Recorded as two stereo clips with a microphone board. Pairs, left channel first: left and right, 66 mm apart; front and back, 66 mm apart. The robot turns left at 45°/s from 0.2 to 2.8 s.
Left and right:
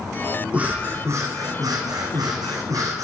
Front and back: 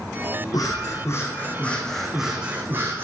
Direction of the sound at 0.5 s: 20° right.